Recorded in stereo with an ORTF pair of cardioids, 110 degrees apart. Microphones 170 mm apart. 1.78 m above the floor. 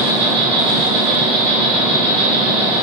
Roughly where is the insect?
Ahead right.